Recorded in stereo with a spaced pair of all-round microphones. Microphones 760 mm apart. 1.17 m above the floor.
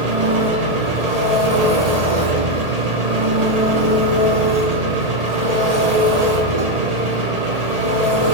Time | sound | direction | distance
0.0 | an engine running | 55° right (ahead or behind) | 1.2 m